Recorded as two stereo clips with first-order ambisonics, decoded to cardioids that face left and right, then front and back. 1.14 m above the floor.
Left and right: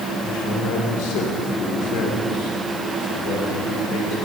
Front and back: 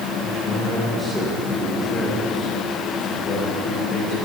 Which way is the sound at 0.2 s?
105° left.